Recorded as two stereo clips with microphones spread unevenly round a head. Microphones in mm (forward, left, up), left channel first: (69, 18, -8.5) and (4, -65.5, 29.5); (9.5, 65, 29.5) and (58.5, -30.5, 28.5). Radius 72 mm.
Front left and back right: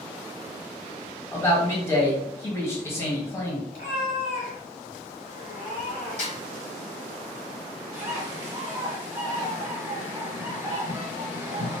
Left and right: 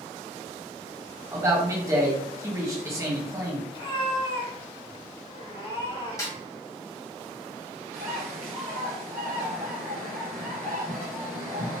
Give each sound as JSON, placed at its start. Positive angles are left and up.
{"t": 1.3, "sound": "a man speaking", "azimuth_deg": 0, "distance_m": 1.3}
{"t": 3.7, "sound": "a cat meowing", "azimuth_deg": 90, "distance_m": 1.5}
{"t": 6.2, "sound": "a snare drum", "azimuth_deg": 55, "distance_m": 1.0}
{"t": 7.9, "sound": "a bird", "azimuth_deg": -120, "distance_m": 1.0}